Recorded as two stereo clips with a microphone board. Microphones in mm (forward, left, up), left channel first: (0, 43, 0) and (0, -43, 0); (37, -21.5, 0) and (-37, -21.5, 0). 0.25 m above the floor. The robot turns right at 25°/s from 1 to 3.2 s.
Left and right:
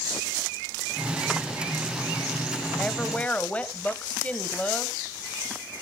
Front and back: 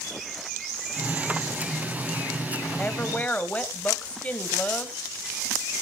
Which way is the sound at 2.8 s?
30° left.